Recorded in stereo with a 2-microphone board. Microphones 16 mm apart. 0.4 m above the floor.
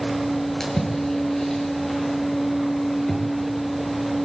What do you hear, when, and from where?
0.6 s a splash: 25° left (ahead or behind), 8.5 m